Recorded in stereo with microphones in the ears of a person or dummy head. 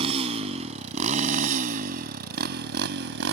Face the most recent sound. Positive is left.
turn(degrees=-65)  # may be behind; listen again after turning